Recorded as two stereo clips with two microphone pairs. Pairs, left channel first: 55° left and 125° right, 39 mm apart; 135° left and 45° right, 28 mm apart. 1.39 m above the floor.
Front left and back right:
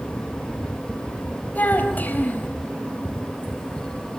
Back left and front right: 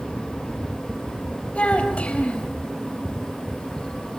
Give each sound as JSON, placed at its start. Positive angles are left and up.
{"t": 1.6, "sound": "a child speaking", "azimuth_deg": 95, "distance_m": 4.0}